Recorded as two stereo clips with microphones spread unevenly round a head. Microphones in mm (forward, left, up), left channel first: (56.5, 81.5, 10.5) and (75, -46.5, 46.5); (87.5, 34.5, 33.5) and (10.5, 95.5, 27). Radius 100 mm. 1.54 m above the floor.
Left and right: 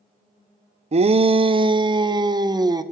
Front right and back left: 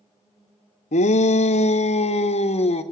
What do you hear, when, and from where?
0.9 s a shout: 45° right, 0.7 m; by 2.8 s 20° right, 1.6 m